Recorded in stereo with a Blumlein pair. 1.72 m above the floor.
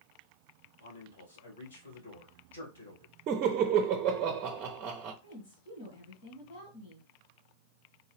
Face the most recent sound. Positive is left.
turn(degrees=50)